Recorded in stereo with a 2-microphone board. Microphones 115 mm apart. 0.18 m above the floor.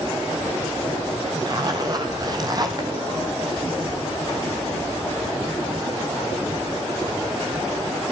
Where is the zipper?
35° right (ahead or behind), 2.5 m.